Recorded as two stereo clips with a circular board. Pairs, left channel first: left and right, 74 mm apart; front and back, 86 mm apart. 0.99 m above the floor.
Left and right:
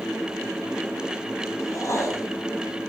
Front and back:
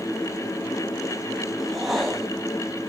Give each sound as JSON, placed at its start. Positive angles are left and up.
{"t": 1.6, "sound": "a whoosh", "azimuth_deg": 90, "distance_m": 1.1}